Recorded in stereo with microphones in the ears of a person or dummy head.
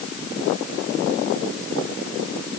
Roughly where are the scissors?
I don't hear scissors.